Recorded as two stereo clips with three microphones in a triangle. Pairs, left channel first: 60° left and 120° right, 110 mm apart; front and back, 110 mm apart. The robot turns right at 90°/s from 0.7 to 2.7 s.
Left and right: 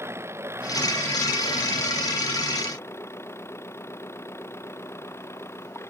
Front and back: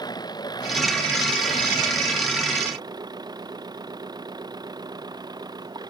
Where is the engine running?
55° right; by 5.9 s 125° left.